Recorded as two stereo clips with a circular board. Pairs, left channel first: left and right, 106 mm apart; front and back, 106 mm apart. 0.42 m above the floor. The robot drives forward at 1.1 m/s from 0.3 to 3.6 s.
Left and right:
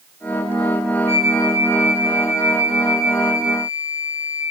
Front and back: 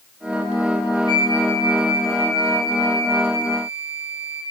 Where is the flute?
150° right, 2.5 m; by 4.4 s 170° right, 5 m.